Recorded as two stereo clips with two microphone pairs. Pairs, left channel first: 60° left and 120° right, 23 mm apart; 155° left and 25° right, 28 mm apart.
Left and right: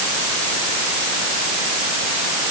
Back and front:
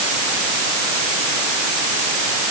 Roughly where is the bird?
No bird in this recording.